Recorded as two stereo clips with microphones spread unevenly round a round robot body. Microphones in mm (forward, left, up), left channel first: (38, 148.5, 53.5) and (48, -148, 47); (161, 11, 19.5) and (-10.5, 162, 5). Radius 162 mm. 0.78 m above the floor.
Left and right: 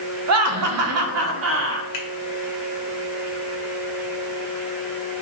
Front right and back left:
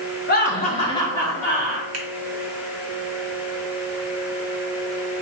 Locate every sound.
0.3 s laughter: 85° right, 0.7 m; by 1.8 s 135° right, 1.2 m
1.9 s a finger snap: 135° left, 1.1 m